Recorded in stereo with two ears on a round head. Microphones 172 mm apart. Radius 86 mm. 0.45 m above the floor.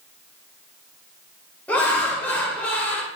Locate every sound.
1.7 s laughter: 10° left (ahead or behind), 1.4 m